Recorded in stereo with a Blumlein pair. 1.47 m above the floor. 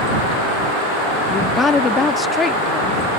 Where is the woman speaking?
15° left.